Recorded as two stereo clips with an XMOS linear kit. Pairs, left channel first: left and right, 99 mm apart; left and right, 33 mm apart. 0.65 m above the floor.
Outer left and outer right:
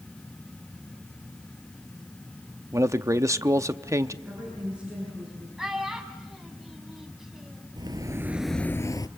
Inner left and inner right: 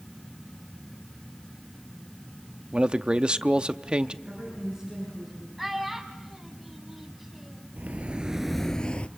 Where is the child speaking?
5° right (ahead or behind), 3 m.